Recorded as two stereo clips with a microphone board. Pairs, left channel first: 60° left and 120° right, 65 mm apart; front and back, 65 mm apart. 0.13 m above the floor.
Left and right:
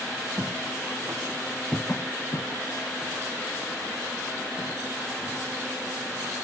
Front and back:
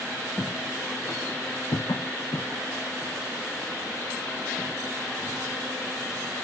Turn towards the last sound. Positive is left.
turn(degrees=80)